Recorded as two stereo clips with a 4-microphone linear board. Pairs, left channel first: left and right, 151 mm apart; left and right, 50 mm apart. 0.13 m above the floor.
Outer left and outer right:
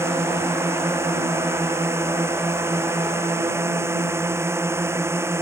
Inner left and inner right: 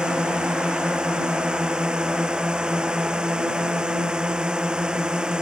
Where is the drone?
20° right (ahead or behind).